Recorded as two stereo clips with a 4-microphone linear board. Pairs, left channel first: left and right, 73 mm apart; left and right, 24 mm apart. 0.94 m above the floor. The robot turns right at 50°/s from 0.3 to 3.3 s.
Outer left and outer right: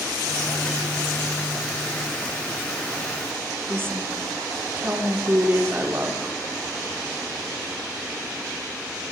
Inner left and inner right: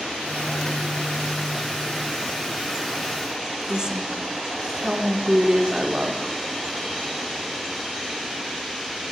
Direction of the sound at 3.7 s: 30° right (ahead or behind).